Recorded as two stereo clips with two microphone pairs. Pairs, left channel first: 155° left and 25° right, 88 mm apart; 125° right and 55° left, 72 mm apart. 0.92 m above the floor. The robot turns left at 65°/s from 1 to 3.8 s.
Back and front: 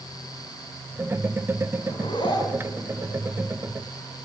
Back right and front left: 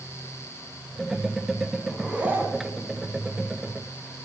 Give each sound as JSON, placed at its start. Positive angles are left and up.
{"t": 1.9, "sound": "a zipper", "azimuth_deg": 150, "distance_m": 2.5}